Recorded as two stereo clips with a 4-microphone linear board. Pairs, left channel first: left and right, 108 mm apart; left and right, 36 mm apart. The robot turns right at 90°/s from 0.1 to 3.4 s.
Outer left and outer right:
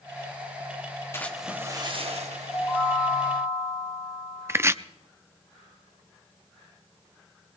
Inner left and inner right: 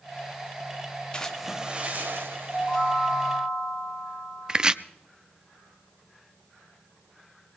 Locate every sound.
1.1 s a splash: 155° left, 1.7 m; by 2.9 s 40° right, 1.7 m
2.5 s a chime: 5° right, 6.5 m; by 4.7 s 75° left, 6.5 m
4.5 s chopping: 20° right (ahead or behind), 0.5 m